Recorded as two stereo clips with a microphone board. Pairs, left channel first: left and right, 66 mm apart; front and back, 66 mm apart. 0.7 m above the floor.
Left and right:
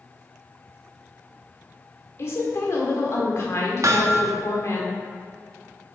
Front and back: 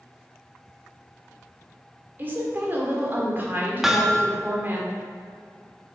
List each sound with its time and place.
2.2 s a woman speaking: 125° left, 1.7 m
3.8 s hammering: 95° right, 0.7 m